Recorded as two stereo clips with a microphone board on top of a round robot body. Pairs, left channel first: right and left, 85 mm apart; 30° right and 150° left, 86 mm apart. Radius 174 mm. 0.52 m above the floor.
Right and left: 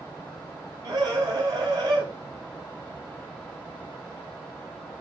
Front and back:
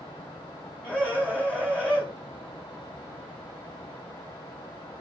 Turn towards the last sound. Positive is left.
turn(degrees=40)